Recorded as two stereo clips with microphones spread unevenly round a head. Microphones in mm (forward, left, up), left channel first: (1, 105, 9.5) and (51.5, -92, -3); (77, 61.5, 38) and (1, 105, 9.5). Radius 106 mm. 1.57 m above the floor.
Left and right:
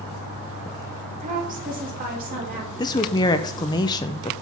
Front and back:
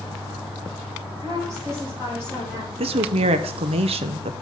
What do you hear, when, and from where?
1.2 s a woman speaking: 135° right, 1.6 m; by 2.7 s 125° right, 3.5 m
2.8 s a woman speaking: 170° left, 0.5 m